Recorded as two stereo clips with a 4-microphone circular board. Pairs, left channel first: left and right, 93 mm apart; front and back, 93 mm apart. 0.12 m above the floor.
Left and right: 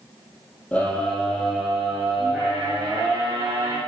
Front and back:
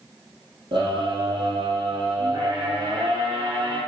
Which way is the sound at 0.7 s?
165° left.